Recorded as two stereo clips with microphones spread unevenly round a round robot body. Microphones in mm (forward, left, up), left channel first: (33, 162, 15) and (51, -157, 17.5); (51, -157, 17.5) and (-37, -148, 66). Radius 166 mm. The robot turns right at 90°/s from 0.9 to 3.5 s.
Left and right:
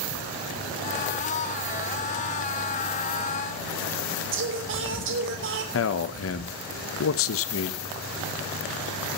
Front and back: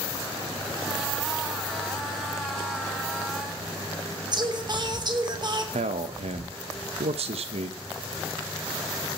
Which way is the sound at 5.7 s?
135° left.